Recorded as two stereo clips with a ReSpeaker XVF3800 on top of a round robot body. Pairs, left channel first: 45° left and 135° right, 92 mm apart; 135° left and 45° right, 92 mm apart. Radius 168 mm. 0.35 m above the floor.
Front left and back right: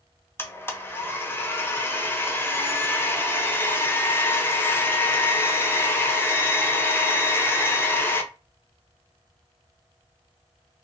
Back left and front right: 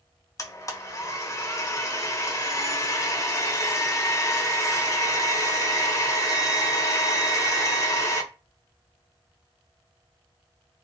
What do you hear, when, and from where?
0.4 s a blender: 100° left, 0.8 m